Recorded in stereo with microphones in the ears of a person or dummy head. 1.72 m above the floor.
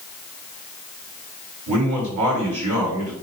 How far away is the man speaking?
About 3.5 m.